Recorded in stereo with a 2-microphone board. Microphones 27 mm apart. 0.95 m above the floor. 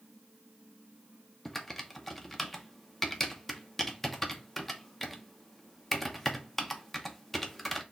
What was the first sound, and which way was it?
Typing on a keyboard, 5° left (ahead or behind).